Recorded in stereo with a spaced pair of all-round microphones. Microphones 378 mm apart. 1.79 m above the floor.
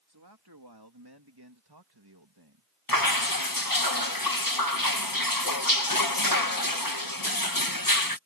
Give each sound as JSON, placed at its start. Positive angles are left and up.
{"t": 0.1, "sound": "a man speaking", "side_deg": -75}
{"t": 2.9, "sound": "dripping", "side_deg": 60}